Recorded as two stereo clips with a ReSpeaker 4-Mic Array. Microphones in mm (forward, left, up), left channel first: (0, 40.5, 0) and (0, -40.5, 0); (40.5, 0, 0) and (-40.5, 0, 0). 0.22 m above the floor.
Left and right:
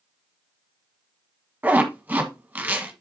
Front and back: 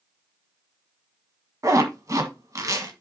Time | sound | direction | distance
1.6 | a zipper | 150° right | 1.6 m